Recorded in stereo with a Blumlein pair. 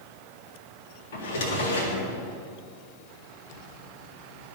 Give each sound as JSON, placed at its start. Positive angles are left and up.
{"t": 1.1, "sound": "a drawer", "azimuth_deg": 55, "distance_m": 1.9}